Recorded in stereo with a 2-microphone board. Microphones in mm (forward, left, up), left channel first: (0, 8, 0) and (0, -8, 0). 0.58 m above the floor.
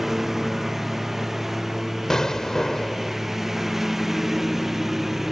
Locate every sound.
0.0 s a lawn mower: 15° right (ahead or behind)
2.1 s an explosion: 35° left (ahead or behind)